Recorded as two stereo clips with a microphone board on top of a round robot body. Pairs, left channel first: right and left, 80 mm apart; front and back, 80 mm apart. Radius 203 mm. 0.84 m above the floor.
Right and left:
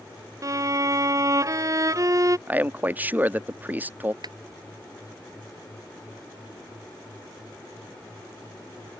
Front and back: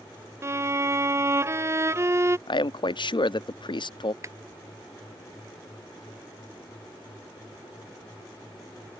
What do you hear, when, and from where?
0.4 s a violin: 130° left
2.5 s a man speaking: 20° left
4.2 s a clap: 125° left